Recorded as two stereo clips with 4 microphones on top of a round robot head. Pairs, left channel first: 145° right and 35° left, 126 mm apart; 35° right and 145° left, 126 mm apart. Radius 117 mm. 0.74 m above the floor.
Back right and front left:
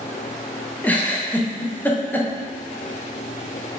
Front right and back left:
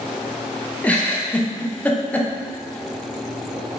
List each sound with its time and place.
0.8 s a giggle: 95° right, 0.6 m